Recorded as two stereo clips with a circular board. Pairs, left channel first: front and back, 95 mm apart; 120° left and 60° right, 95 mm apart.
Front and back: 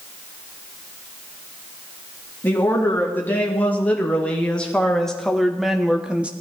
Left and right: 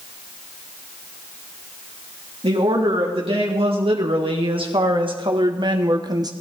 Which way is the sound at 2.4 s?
70° right.